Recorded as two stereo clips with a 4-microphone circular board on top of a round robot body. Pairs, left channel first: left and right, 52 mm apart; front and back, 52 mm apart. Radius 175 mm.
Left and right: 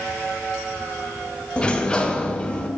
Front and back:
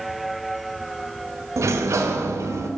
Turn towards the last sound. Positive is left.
turn(degrees=160)